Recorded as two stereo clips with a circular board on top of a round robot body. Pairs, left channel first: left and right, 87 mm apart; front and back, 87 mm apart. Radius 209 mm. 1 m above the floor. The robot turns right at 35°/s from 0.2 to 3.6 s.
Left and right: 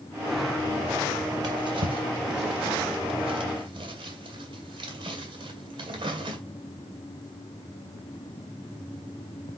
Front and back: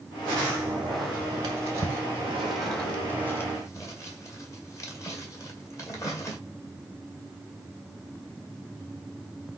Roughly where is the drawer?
Behind right.